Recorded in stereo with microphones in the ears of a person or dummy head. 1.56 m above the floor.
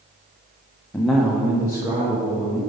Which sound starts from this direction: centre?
A man speaking, at 0.9 s.